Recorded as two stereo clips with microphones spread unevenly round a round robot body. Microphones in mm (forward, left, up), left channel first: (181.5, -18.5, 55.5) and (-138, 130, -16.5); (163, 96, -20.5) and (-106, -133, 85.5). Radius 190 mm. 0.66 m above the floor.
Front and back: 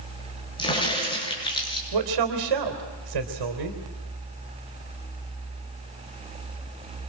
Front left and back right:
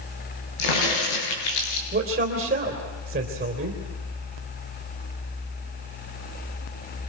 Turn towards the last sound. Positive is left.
turn(degrees=150)